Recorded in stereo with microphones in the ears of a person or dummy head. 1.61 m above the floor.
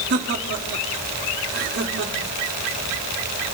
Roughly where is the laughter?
Right.